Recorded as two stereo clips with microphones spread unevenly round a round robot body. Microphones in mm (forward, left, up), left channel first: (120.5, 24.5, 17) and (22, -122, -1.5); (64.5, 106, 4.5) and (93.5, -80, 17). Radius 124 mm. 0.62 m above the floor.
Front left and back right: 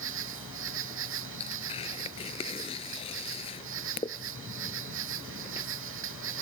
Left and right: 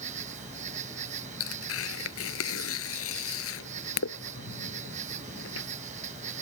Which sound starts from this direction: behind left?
Tearing paper, at 1.4 s.